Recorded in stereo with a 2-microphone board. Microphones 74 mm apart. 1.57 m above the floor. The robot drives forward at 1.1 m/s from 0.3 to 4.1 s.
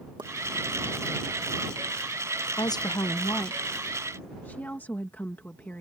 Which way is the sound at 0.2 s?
70° right (ahead or behind).